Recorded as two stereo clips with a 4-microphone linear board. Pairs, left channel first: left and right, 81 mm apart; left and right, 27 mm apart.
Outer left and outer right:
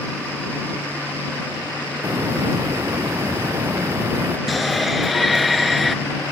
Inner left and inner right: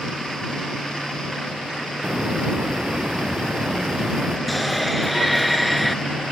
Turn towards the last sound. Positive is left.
turn(degrees=0)  # may be behind; listen again after turning